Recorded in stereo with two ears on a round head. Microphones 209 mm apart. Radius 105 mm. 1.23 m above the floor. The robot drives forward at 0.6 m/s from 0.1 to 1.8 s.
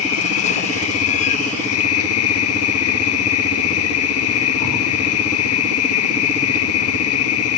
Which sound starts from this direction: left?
An insect, at 0.0 s.